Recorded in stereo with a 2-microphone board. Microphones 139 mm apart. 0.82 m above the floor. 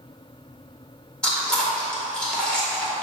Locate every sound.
1.2 s chewing: 5° left (ahead or behind), 1.9 m